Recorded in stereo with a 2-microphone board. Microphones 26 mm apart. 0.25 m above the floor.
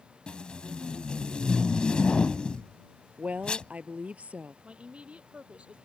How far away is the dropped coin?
No dropped coin in this recording.